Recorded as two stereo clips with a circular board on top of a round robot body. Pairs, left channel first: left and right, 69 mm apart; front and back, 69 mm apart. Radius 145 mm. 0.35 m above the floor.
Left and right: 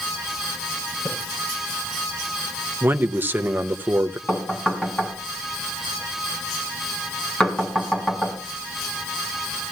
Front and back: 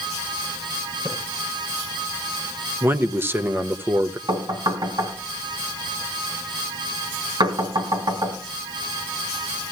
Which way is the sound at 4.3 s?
165° left.